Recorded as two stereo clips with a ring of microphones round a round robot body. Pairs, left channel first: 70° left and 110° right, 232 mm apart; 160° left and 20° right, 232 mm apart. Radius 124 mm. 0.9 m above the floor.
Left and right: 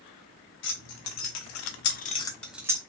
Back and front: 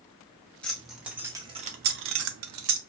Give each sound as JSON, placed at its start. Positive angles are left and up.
{"t": 0.6, "sound": "keys jangling", "azimuth_deg": 70, "distance_m": 0.9}